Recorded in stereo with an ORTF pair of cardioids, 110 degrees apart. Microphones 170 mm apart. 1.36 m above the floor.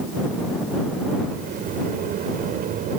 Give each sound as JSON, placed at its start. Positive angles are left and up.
{"t": 1.3, "sound": "a sliding door", "azimuth_deg": -60}